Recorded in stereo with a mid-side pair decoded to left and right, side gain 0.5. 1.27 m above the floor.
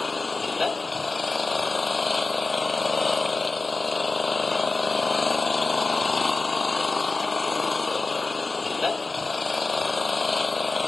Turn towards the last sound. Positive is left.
turn(degrees=20)